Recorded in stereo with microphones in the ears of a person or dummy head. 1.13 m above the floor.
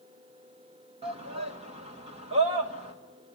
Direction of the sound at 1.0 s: 30° right (ahead or behind).